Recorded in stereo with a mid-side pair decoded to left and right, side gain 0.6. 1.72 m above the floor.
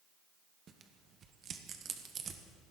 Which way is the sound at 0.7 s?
45° right.